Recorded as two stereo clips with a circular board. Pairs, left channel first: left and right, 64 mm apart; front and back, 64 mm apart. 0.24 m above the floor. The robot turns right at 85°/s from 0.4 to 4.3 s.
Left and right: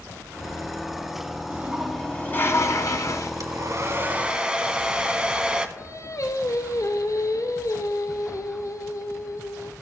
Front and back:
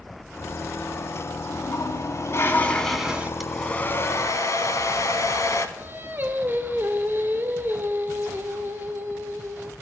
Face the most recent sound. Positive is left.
turn(degrees=125)